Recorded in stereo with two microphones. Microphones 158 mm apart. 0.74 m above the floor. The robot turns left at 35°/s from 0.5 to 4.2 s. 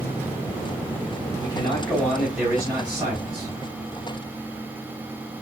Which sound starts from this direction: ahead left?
A man speaking, at 1.4 s.